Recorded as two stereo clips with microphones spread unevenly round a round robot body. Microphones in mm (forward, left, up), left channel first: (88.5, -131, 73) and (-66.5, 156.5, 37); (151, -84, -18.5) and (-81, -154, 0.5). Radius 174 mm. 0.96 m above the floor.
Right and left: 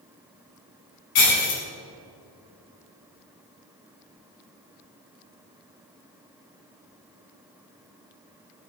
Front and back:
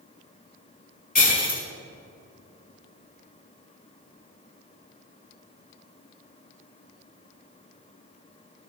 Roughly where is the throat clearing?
I don't hear throat clearing.